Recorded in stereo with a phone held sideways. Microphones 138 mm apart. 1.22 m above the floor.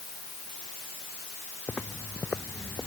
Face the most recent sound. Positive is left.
turn(degrees=15)  # may be behind; listen again after turning